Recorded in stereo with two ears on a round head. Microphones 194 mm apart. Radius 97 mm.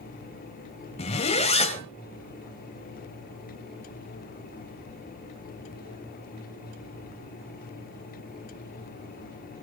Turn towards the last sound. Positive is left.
turn(degrees=30)  # may be behind; listen again after turning